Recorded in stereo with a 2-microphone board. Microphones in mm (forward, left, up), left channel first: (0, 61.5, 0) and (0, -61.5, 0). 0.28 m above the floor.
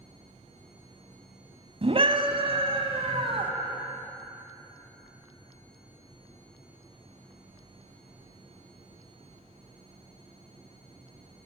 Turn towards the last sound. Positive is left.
turn(degrees=-50)  # may be behind; listen again after turning